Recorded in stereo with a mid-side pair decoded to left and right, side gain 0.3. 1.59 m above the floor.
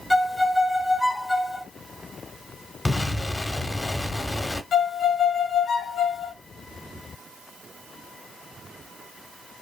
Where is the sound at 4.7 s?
70° left, 0.9 m.